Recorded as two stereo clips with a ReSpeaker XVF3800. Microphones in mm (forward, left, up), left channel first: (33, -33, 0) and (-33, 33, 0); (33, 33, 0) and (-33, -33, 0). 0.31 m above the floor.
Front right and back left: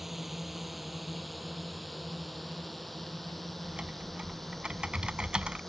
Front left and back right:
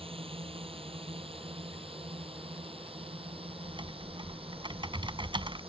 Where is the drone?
135° right; by 5.7 s 130° right.